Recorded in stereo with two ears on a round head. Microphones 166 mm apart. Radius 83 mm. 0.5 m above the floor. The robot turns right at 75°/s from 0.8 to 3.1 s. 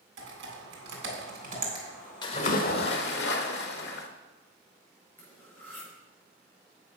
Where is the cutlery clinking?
10° left (ahead or behind), 5 m.